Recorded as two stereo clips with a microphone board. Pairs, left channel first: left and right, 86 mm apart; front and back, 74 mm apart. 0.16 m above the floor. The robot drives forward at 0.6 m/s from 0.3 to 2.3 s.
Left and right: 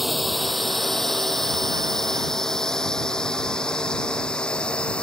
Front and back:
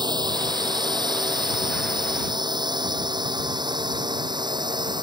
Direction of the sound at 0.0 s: Straight behind.